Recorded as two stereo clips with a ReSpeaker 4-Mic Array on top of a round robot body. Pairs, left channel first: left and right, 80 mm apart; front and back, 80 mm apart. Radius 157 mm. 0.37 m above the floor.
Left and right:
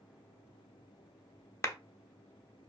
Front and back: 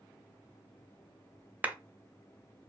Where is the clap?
120° left, 0.7 m.